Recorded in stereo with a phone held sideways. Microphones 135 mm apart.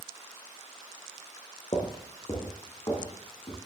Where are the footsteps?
40° left (ahead or behind), 2.5 m; by 3.6 s 30° left (ahead or behind), 4 m.